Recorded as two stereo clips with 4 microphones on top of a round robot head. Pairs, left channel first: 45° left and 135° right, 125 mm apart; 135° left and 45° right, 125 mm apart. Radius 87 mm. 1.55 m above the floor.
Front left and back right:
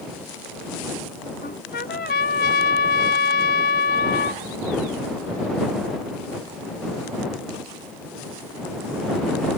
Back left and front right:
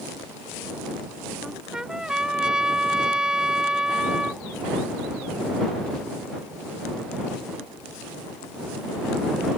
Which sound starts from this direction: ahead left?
A trumpet, at 1.4 s.